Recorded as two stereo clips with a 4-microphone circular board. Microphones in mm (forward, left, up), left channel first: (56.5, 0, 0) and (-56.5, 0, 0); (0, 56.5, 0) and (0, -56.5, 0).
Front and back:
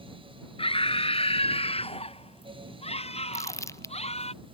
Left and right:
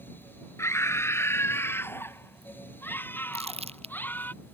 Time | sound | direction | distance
0.6 | a scream | 25° left | ?
3.3 | crumpling | 65° right | ?